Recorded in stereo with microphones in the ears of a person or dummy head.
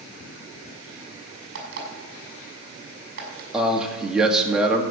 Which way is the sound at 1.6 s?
55° right (ahead or behind).